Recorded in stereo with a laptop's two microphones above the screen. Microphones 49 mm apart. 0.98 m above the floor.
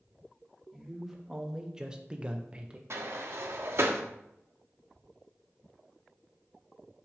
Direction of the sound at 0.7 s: 5° right (ahead or behind).